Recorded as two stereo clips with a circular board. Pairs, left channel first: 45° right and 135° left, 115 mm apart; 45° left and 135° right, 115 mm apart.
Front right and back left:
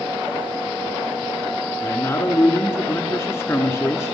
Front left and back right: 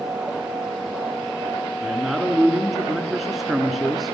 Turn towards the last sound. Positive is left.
turn(degrees=-50)